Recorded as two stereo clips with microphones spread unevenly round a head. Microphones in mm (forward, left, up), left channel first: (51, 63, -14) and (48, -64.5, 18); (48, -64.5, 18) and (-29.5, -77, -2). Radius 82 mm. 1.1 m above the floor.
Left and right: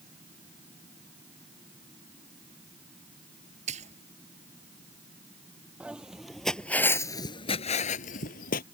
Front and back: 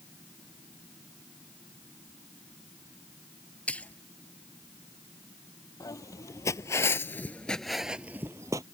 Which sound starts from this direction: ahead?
Footsteps, at 5.8 s.